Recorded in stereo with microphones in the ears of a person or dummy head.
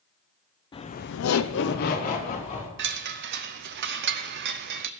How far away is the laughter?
About 1.0 m.